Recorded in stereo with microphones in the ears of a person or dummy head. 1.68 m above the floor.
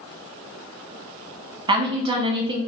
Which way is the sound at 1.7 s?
30° right (ahead or behind).